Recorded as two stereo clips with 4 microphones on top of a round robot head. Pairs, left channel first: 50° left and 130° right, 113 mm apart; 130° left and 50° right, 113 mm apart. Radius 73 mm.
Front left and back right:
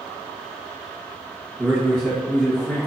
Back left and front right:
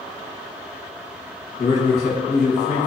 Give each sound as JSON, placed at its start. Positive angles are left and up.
{"t": 1.6, "sound": "a man speaking", "azimuth_deg": 135, "distance_m": 1.0}